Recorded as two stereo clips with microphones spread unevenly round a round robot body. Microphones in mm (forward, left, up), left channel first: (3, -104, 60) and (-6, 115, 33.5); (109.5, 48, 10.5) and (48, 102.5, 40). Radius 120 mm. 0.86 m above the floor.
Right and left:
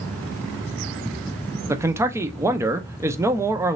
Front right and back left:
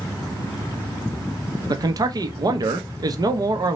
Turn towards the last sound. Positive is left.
turn(degrees=135)